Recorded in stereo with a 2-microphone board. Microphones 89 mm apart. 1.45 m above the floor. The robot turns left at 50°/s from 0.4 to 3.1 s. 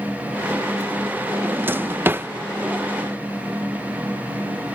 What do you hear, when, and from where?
1.4 s a drawer: 20° right (ahead or behind)